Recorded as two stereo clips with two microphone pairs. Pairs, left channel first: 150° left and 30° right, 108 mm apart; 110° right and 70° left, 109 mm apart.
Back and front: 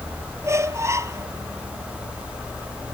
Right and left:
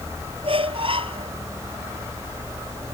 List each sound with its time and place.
0.4 s a squeak: 35° left